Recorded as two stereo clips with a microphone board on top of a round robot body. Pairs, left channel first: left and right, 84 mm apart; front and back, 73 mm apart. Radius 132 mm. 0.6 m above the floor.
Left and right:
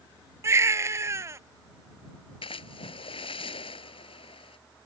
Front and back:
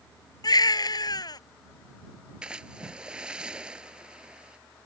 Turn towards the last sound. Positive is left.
turn(degrees=100)